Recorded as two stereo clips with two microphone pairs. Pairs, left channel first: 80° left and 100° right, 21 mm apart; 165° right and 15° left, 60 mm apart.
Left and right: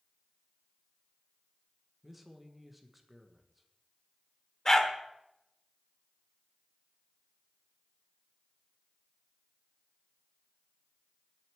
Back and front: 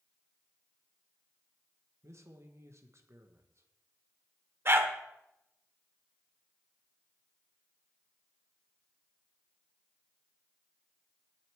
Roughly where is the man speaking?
Ahead.